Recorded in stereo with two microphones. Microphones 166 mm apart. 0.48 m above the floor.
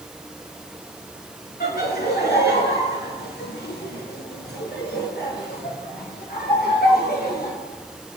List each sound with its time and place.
1.6 s laughter: 70° left (ahead or behind), 5.5 m; by 7.5 s 65° left (ahead or behind), 7 m